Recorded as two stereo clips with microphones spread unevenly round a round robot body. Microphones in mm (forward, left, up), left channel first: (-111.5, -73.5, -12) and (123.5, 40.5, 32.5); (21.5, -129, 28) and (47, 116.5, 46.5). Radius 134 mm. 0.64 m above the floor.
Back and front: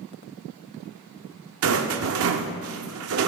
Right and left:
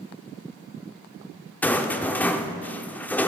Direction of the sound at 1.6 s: 15° right.